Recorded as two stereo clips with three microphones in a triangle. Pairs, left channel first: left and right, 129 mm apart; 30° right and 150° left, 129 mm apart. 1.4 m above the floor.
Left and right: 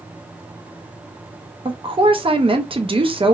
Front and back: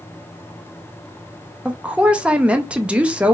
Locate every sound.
1.6 s a woman speaking: 130° right, 0.6 m